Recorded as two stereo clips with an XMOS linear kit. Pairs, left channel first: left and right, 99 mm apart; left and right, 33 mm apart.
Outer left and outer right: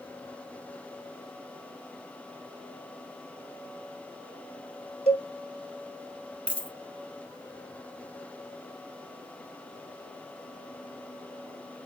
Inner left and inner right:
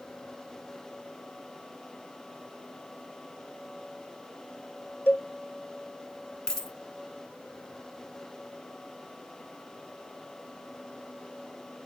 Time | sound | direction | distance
5.1 | a cowbell | 80° left | 0.5 m
6.5 | a dropped coin | 15° left (ahead or behind) | 0.8 m